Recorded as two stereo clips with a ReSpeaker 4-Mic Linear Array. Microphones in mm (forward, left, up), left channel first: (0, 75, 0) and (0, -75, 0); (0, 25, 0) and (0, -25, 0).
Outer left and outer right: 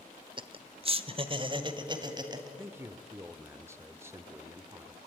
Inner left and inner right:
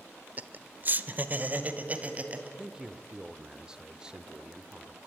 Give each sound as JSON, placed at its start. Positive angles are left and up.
{"t": 0.4, "sound": "laughter", "side_deg": -35, "distance_m": 0.9}
{"t": 2.6, "sound": "a man speaking", "side_deg": -15, "distance_m": 0.9}